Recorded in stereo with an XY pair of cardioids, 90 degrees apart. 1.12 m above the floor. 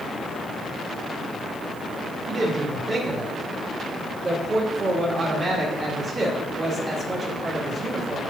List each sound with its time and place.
2.3 s a woman speaking: 30° right, 2 m